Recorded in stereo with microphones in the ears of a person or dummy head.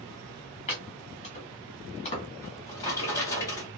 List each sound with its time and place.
0.7 s chopping: 35° left (ahead or behind), 1.4 m
2.4 s a drawer: 15° left (ahead or behind), 1.0 m